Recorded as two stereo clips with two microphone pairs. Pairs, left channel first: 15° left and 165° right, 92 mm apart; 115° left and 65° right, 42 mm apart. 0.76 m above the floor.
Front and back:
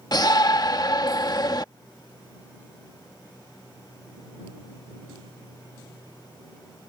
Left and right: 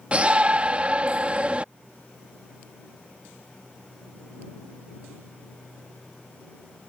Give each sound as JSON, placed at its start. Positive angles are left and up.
{"t": 0.1, "sound": "a shout", "azimuth_deg": -10}